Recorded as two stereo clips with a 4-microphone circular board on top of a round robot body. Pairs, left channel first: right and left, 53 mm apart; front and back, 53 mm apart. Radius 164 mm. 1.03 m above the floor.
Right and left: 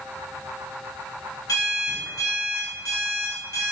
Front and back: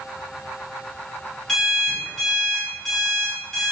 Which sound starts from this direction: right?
An alarm clock, at 1.5 s.